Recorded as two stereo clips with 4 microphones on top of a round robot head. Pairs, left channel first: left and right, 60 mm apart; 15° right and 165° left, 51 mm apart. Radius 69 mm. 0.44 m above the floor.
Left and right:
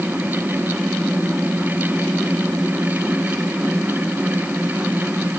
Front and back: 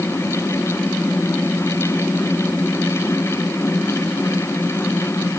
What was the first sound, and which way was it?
Only background noise.